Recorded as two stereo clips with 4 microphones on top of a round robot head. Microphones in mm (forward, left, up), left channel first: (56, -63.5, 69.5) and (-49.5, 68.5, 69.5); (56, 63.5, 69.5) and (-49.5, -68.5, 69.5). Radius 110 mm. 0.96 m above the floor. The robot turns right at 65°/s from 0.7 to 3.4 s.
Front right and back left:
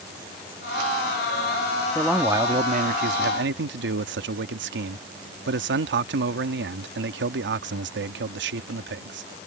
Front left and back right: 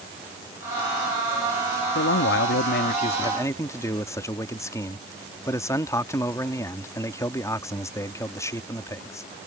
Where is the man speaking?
30° left; by 9.3 s 125° left.